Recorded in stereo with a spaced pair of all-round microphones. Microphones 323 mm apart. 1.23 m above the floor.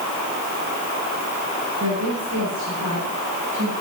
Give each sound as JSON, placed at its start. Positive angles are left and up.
{"t": 1.8, "sound": "a woman speaking", "side_deg": -55, "distance_m": 9.0}